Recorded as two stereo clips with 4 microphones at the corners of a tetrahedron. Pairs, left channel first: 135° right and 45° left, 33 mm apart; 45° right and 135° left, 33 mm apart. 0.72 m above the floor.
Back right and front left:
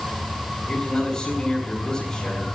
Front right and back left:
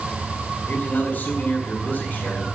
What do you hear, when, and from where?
0.7 s a man speaking: 75° right, 5.5 m